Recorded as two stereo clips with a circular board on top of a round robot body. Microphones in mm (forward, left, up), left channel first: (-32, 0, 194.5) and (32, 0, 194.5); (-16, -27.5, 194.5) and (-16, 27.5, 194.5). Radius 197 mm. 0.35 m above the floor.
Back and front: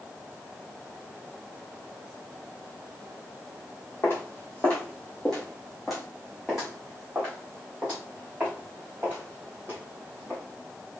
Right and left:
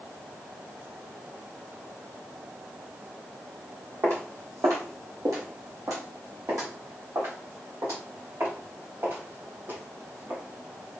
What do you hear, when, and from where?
4.0 s footsteps: 130° left, 1.3 m; by 10.4 s 55° left, 3.5 m